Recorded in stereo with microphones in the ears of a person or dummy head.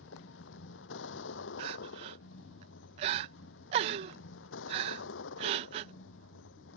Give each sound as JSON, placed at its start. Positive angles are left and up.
{"t": 0.0, "sound": "a vehicle", "side_deg": 70}
{"t": 1.6, "sound": "crying", "side_deg": -35}